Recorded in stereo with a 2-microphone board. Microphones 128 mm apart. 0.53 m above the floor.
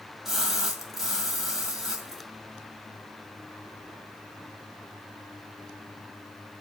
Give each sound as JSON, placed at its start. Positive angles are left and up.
{"t": 0.2, "sound": "a splash", "side_deg": -5, "distance_m": 1.9}